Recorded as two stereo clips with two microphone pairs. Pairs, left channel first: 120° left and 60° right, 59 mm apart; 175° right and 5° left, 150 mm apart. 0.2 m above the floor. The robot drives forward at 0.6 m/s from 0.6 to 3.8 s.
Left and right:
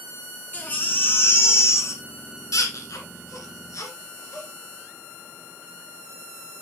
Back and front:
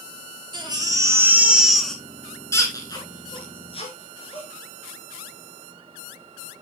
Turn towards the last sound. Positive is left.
turn(degrees=140)